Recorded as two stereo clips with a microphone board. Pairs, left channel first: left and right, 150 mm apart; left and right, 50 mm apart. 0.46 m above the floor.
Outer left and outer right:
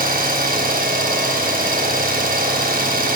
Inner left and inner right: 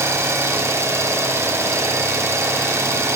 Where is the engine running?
70° right (ahead or behind), 3 m.